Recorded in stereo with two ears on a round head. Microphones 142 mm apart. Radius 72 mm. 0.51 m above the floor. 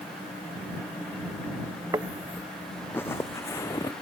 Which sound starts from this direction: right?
Footsteps, at 1.9 s.